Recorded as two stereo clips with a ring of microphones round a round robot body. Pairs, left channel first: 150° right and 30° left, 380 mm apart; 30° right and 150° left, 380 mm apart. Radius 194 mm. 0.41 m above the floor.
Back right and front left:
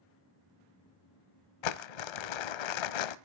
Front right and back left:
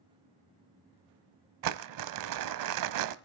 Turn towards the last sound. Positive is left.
turn(degrees=-165)